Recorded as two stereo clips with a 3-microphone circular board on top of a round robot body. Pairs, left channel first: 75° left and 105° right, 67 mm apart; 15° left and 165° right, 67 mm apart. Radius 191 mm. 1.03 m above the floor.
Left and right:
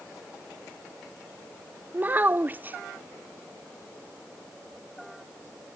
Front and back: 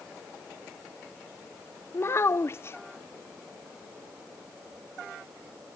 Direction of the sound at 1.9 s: 40° right.